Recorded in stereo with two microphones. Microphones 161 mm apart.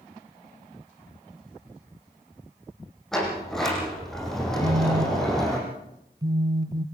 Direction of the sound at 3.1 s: 5° left (ahead or behind).